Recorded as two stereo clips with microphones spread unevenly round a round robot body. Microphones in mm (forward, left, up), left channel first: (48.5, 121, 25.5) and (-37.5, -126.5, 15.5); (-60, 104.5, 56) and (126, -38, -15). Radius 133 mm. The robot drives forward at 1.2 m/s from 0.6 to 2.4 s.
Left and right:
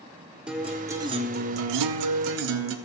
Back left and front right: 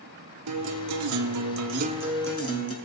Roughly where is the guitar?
Ahead.